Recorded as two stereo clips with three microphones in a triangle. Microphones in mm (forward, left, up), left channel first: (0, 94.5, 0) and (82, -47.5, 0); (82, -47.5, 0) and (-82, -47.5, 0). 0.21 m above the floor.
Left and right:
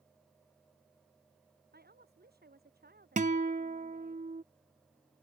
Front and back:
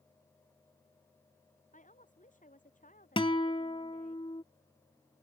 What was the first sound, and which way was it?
A woman speaking, 40° right.